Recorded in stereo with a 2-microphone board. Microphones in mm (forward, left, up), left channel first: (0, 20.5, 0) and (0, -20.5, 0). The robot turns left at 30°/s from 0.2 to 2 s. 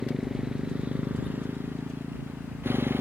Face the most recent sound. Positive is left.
turn(degrees=-65)